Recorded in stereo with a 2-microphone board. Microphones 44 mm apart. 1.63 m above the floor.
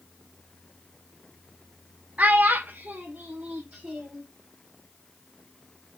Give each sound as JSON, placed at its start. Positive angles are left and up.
{"t": 2.2, "sound": "a child speaking", "side_deg": -40, "distance_m": 0.6}